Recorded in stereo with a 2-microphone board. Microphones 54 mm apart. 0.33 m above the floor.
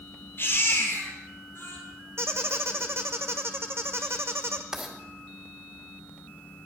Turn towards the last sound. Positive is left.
turn(degrees=-10)  # may be behind; listen again after turning